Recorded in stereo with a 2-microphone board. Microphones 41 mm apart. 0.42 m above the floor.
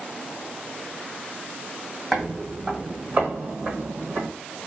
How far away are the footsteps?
About 1.2 m.